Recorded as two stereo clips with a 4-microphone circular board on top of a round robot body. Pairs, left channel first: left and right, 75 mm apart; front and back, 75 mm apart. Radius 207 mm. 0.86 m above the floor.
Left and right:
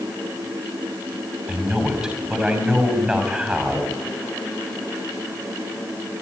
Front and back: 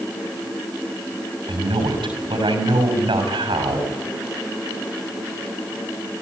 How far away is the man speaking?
About 6.5 m.